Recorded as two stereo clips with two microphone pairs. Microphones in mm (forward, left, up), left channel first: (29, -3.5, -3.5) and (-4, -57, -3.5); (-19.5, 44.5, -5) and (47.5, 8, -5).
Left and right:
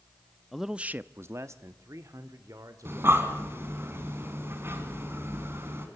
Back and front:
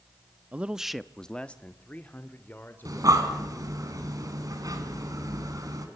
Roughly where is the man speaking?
Ahead right.